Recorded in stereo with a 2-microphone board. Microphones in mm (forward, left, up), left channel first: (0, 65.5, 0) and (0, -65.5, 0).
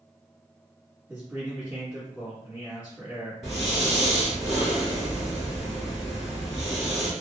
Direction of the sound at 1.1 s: 15° right (ahead or behind).